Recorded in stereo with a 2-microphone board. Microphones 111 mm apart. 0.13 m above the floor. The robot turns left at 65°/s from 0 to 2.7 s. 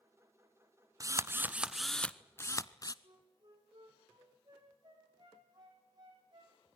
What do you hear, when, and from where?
1.0 s a drill: 125° right, 0.7 m; by 2.9 s 125° left, 0.7 m
3.0 s a flute: 40° right (ahead or behind), 7 m